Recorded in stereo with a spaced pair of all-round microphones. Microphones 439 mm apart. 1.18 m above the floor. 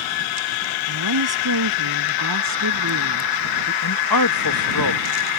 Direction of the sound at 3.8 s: 50° left (ahead or behind).